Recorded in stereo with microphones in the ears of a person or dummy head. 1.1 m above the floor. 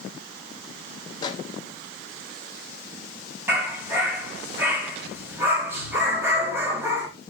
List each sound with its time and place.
1.2 s a microwave: 25° left (ahead or behind), 1.1 m
3.5 s a dog barking: 15° right (ahead or behind), 3 m